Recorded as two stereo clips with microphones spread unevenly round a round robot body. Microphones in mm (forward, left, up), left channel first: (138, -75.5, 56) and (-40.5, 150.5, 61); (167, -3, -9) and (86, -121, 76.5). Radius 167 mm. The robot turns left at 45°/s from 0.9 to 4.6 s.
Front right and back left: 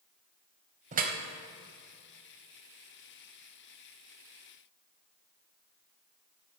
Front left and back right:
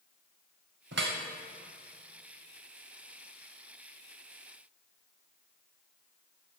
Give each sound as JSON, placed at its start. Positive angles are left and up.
{"t": 0.9, "sound": "dripping", "azimuth_deg": -165, "distance_m": 0.9}